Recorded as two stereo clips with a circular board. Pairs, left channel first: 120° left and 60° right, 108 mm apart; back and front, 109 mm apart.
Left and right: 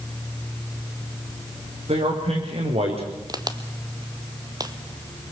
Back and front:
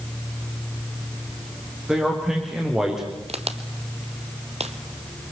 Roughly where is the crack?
Ahead.